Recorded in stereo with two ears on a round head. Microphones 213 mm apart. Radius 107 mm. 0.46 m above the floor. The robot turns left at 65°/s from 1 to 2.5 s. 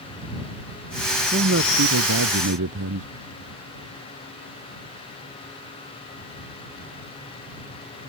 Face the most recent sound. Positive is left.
turn(degrees=-115)